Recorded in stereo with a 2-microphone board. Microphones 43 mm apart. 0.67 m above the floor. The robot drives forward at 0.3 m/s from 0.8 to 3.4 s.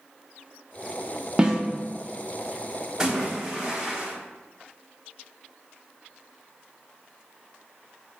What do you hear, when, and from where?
1.4 s a snare drum: 20° right (ahead or behind), 0.6 m
3.0 s a splash: 15° right (ahead or behind), 0.8 m